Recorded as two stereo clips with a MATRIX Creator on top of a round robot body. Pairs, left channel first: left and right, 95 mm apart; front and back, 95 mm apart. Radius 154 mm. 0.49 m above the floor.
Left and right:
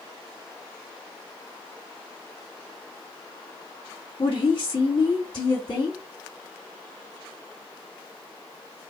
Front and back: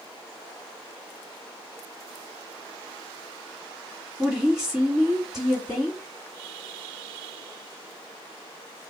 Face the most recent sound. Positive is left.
turn(degrees=100)